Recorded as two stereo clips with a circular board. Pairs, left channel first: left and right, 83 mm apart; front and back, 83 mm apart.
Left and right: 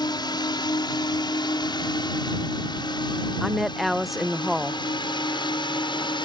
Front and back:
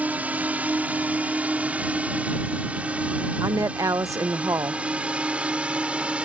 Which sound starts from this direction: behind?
A woman speaking, at 3.4 s.